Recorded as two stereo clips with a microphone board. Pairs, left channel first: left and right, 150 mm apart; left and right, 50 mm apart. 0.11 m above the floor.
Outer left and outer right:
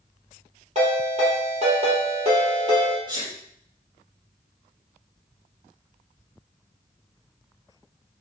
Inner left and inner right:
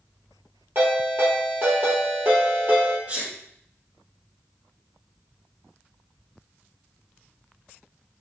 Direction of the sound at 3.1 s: 35° right (ahead or behind).